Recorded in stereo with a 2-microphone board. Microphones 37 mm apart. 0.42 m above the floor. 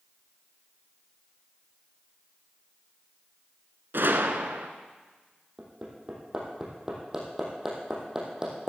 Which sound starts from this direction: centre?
Hammering, at 5.6 s.